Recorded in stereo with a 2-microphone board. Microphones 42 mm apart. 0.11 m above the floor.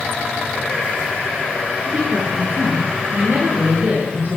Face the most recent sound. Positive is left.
turn(degrees=-40)  # may be behind; listen again after turning